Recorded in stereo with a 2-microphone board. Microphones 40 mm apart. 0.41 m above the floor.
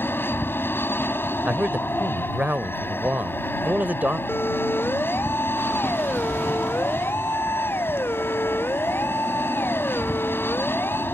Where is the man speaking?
45° right (ahead or behind).